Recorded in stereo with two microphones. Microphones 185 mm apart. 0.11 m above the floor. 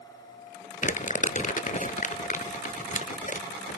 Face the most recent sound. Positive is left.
turn(degrees=45)  # may be behind; listen again after turning